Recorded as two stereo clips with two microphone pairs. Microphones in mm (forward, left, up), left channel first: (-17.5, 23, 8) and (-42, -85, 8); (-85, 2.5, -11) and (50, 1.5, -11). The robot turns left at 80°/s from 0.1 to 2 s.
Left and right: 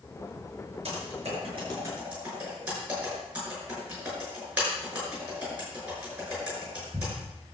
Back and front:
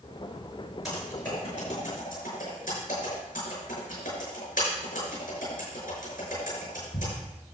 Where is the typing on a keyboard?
90° right, 5.5 m; by 7.1 s straight behind, 5.5 m.